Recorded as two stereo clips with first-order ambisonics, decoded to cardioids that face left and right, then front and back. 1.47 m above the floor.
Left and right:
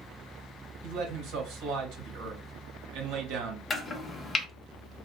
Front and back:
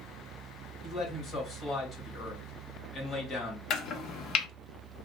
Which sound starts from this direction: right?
A man speaking, at 0.8 s.